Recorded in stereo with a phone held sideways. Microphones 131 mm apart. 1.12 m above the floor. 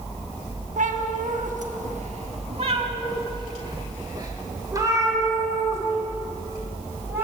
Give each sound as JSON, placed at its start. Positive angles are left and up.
{"t": 0.8, "sound": "a cat meowing", "side_deg": -75, "distance_m": 1.2}